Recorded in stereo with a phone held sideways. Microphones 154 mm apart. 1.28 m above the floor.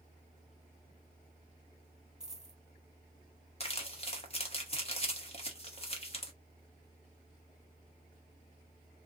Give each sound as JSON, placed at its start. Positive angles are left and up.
{"t": 2.2, "sound": "a dropped coin", "side_deg": -5, "distance_m": 1.5}
{"t": 3.6, "sound": "crumpling", "side_deg": 40, "distance_m": 1.1}